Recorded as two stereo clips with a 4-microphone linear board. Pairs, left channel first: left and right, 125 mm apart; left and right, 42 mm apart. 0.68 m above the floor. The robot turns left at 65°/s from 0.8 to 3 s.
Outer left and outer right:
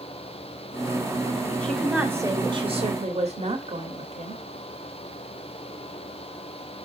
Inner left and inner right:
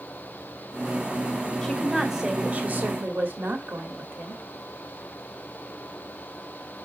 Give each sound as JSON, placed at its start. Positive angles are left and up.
{"t": 1.6, "sound": "a woman speaking", "azimuth_deg": 10, "distance_m": 1.6}